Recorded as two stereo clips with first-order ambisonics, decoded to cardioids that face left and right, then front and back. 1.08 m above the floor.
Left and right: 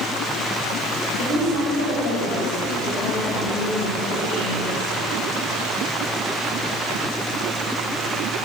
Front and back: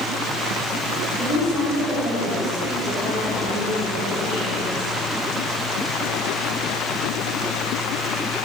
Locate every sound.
1.1 s a woman speaking: 70° left, 6 m